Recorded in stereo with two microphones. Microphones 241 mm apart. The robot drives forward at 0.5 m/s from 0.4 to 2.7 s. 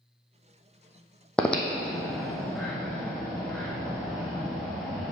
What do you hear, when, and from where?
1.4 s breathing: 5° left (ahead or behind), 1.0 m